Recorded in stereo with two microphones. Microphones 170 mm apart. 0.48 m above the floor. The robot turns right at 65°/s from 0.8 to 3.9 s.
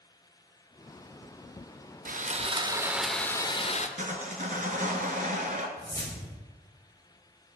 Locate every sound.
2.0 s sawing: 65° right, 0.5 m; by 3.9 s 50° left, 0.5 m
4.0 s sawing: 50° right (ahead or behind), 1.1 m
5.8 s a whoosh: 20° left (ahead or behind), 1.6 m